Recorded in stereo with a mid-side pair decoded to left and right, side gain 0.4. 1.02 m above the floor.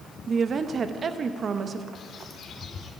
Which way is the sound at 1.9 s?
65° left.